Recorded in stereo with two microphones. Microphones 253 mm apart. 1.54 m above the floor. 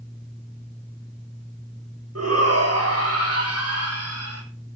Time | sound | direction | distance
2.1 | a shout | 75° right (ahead or behind) | 8 m